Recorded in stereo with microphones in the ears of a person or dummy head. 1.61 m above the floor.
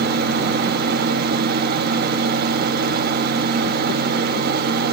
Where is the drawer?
No drawer in this recording.